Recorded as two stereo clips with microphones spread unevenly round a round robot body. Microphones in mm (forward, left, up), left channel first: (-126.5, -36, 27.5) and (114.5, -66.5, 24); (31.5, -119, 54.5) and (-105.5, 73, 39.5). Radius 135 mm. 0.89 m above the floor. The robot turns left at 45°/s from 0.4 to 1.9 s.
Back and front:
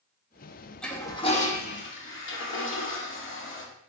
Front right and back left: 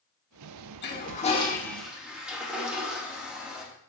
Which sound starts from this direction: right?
A toilet flushing, at 0.8 s.